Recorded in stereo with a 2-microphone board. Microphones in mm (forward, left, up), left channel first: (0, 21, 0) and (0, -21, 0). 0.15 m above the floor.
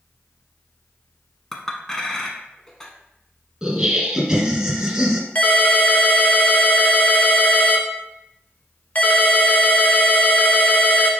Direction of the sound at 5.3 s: 40° left (ahead or behind).